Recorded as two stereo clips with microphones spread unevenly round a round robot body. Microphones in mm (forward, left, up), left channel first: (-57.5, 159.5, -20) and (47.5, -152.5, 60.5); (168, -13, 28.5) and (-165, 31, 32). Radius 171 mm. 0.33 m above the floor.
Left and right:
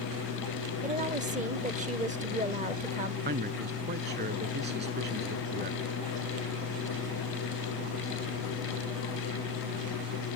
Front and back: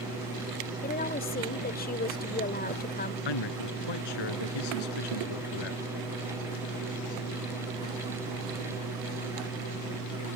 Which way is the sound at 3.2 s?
5° right.